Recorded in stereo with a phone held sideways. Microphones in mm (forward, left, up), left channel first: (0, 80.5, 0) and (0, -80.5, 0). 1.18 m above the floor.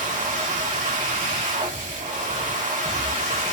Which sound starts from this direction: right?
A machine running, at 0.0 s.